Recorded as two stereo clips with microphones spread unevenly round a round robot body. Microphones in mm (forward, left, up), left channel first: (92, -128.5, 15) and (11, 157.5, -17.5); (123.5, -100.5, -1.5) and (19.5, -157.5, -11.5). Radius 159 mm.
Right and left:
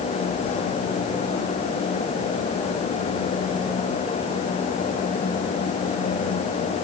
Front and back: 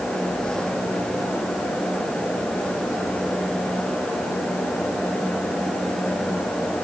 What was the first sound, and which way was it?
Only background noise.